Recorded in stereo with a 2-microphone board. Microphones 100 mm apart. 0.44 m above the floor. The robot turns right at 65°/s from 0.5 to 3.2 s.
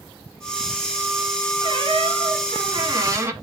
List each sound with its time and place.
1.6 s a squeak: 130° right, 1.5 m; by 3.3 s 30° right, 1.5 m